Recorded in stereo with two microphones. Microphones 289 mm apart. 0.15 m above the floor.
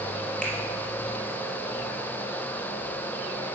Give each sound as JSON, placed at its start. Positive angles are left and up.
{"t": 0.4, "sound": "a finger snap", "side_deg": 5, "distance_m": 3.0}